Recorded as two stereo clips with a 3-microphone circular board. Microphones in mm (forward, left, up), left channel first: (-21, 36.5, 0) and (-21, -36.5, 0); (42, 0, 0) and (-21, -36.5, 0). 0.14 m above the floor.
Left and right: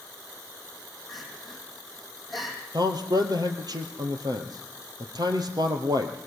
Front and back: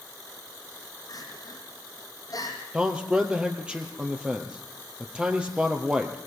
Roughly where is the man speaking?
Right.